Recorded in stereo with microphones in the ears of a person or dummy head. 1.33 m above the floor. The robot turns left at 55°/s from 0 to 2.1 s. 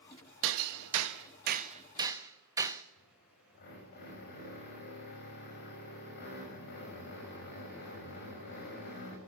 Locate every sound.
0.4 s hammering: 65° right (ahead or behind), 1.3 m; by 2.8 s 15° right (ahead or behind), 1.3 m
3.0 s a drill: 55° left (ahead or behind), 6.5 m